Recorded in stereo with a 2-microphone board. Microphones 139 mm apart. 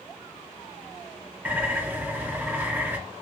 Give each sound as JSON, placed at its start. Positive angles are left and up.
{"t": 1.4, "sound": "a bird", "side_deg": -10, "distance_m": 0.9}